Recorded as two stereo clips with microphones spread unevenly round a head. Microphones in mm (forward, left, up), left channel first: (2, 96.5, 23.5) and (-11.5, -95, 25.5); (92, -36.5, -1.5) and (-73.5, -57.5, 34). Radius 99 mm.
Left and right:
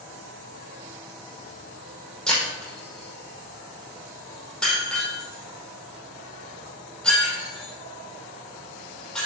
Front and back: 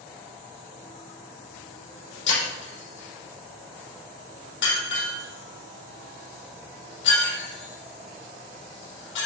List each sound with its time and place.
2.3 s breaking glass: straight ahead, 5 m